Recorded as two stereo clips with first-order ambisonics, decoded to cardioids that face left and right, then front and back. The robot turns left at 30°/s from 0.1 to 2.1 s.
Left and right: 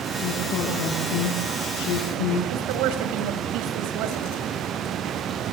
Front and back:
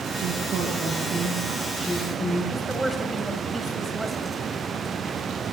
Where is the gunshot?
No gunshot in this recording.